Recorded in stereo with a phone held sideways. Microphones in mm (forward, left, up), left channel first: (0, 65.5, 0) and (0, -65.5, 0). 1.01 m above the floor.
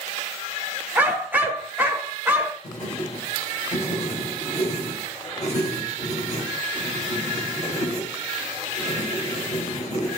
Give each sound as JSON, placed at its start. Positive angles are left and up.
{"t": 0.9, "sound": "a dog barking", "side_deg": -15, "distance_m": 0.9}
{"t": 2.6, "sound": "writing", "side_deg": 55, "distance_m": 5.0}